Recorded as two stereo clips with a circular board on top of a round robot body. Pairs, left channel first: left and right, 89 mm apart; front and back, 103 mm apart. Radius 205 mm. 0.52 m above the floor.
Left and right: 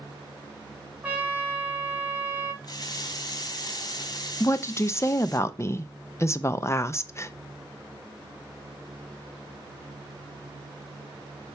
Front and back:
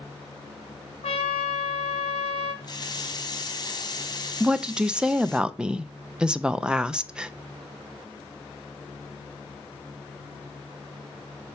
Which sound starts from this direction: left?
A woman speaking, at 4.4 s.